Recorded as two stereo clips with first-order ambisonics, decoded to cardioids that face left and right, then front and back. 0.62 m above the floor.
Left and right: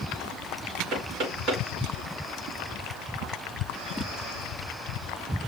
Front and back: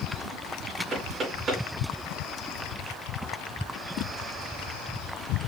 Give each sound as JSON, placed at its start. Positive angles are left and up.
{"t": 0.9, "sound": "knocking", "azimuth_deg": -125, "distance_m": 5.0}